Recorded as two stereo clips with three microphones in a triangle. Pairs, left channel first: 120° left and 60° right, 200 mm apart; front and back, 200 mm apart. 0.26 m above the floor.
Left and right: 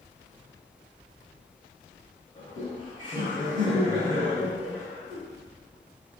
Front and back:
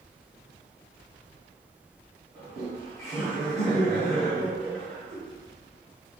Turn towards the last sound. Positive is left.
turn(degrees=160)